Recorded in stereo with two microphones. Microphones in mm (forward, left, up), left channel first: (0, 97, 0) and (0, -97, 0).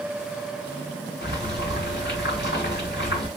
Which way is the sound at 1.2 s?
65° left (ahead or behind).